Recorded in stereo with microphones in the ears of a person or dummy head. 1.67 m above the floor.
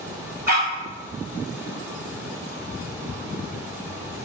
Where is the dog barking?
45° right (ahead or behind), 2.0 m.